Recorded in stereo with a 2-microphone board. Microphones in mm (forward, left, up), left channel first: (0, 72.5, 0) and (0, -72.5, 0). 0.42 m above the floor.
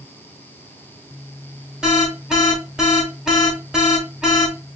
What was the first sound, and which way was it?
An alarm, 5° right (ahead or behind).